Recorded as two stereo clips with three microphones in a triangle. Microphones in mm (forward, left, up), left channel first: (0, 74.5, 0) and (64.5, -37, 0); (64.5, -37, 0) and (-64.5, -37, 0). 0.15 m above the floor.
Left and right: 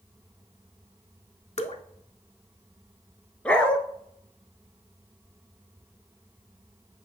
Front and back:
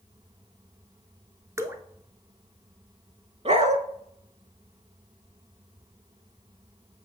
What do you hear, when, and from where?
1.6 s dripping: 120° left, 0.7 m
3.5 s a dog barking: 160° right, 0.6 m